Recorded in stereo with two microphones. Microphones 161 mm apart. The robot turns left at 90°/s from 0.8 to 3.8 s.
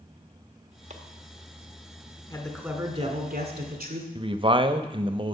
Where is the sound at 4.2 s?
35° right (ahead or behind), 0.7 m.